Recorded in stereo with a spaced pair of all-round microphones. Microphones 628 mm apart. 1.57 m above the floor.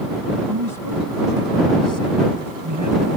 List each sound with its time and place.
0.5 s a man speaking: 35° right (ahead or behind); by 3.2 s 25° right (ahead or behind)